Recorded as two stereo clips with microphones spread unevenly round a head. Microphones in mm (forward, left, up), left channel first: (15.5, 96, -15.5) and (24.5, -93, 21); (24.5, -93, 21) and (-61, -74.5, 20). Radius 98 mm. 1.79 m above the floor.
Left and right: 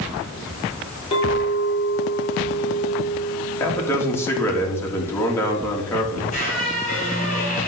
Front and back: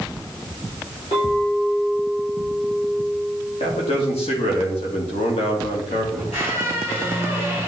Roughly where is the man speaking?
Ahead.